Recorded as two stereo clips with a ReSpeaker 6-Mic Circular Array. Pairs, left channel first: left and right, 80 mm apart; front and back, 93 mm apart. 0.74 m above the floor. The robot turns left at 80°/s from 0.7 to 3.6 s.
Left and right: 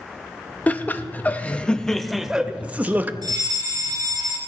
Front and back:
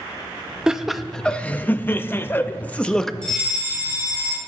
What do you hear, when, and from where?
0.7 s laughter: 110° left, 0.6 m; by 3.1 s 80° right, 0.6 m
3.2 s a fire alarm: 80° right, 4 m; by 4.4 s 110° right, 4 m